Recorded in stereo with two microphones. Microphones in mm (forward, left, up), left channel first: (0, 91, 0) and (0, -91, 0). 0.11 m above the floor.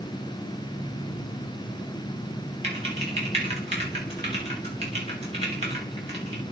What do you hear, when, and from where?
2.6 s typing on a keyboard: 35° right (ahead or behind), 7.5 m